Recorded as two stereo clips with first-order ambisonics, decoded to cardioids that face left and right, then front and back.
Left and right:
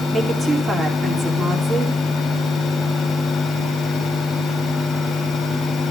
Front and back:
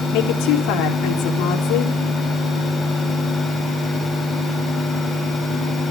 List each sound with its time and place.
0.1 s a woman speaking: 20° right, 4 m